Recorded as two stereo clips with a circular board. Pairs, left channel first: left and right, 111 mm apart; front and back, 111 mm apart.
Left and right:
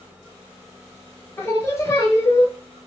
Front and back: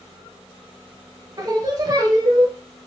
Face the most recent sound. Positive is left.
turn(degrees=145)